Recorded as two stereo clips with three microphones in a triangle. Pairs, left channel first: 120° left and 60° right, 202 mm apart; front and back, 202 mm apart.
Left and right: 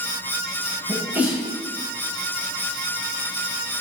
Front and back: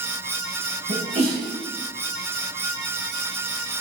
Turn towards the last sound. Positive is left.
turn(degrees=-140)